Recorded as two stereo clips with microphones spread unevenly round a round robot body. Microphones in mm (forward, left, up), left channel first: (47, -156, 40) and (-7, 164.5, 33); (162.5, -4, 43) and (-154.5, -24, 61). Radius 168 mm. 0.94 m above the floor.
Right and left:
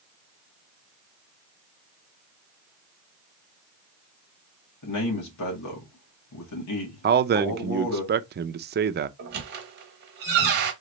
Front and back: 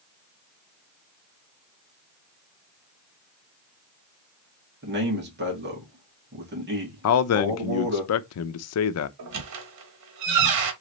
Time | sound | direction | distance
4.8 | a man speaking | 120° right | 2 m
7.0 | a man speaking | 40° left | 0.5 m
9.2 | a squeak | 155° left | 1.1 m